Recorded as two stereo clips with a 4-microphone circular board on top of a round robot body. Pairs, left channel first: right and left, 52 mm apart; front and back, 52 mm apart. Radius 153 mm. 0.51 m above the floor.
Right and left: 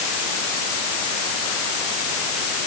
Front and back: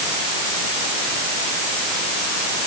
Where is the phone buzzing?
No phone buzzing in this recording.